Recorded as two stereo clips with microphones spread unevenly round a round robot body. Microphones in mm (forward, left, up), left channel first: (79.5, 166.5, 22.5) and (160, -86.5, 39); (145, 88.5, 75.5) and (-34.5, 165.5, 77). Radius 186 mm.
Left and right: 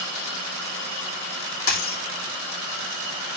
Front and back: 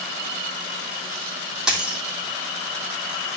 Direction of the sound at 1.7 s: 70° left.